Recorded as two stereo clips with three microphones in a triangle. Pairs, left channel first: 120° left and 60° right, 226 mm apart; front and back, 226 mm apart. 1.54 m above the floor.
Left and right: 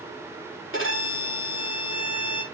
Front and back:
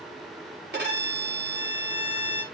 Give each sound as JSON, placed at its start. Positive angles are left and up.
{"t": 0.7, "sound": "a violin", "azimuth_deg": 140, "distance_m": 4.0}